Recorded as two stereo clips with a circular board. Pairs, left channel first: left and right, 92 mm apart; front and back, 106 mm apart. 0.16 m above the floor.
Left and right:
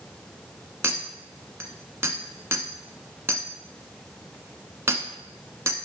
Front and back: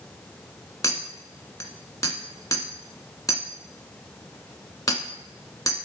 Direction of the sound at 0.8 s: 40° right.